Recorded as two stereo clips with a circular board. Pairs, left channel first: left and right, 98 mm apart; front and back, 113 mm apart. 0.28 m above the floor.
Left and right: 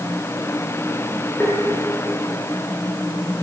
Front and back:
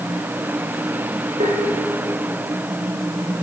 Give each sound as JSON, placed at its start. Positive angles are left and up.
{"t": 1.4, "sound": "tapping", "azimuth_deg": 165, "distance_m": 8.5}